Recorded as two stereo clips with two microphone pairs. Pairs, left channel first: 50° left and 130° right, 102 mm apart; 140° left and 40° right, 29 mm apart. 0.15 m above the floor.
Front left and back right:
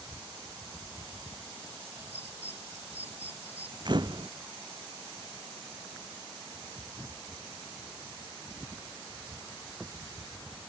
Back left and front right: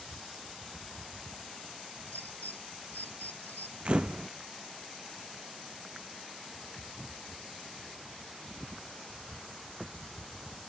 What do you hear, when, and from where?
2.1 s a bird: 155° left
3.9 s a camera shutter: 90° right